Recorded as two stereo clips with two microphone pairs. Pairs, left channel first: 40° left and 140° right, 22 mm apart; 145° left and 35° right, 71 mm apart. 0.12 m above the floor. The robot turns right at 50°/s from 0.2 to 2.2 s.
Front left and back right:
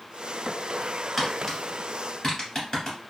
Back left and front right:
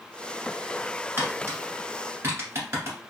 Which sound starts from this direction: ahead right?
Tapping, at 1.2 s.